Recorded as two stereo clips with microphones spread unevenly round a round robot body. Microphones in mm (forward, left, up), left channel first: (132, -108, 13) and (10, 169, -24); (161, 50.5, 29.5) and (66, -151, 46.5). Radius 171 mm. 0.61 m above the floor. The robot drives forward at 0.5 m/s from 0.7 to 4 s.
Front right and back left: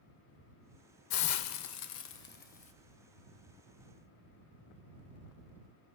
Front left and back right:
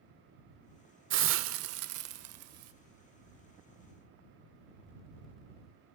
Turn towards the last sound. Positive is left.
turn(degrees=-155)